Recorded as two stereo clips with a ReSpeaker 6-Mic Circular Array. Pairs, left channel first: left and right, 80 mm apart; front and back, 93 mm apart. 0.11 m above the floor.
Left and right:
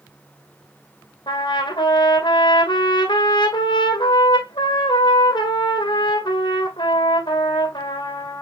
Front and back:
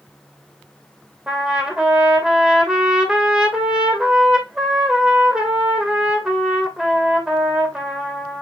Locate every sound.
1.3 s a trumpet: 100° left, 2 m